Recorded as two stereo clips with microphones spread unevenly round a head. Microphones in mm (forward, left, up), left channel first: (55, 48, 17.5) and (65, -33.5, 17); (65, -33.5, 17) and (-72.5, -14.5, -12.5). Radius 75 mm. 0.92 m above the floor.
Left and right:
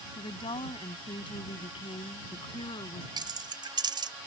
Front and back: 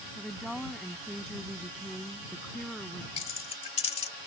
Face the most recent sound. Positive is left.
turn(degrees=-55)